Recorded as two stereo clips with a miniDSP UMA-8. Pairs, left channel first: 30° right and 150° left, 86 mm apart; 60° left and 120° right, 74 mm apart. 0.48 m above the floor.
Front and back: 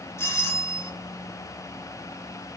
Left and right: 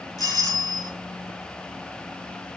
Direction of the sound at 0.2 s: 25° left.